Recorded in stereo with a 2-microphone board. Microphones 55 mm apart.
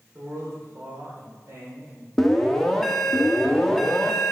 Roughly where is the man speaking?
Right.